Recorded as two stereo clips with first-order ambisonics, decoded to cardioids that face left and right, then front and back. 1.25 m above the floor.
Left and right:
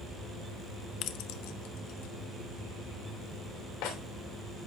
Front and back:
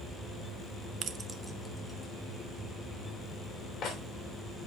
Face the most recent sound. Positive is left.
turn(degrees=65)